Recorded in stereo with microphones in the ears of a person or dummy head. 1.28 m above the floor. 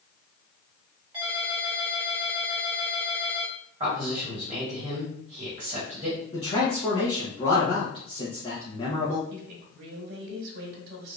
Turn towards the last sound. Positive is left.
turn(degrees=-75)  # may be behind; listen again after turning